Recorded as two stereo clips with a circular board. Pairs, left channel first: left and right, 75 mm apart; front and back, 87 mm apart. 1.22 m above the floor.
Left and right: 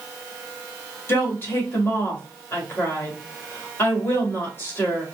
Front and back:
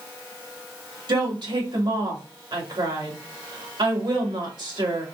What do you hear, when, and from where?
1.1 s a woman speaking: 150° left, 1.9 m